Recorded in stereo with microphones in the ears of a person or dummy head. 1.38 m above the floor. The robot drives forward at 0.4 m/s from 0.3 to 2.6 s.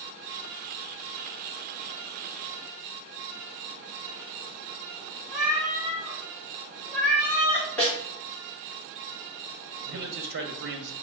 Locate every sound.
5.3 s a cat meowing: 5° right (ahead or behind), 1.2 m
7.8 s a snare drum: 10° left (ahead or behind), 1.8 m
9.8 s a man speaking: 55° right (ahead or behind), 0.6 m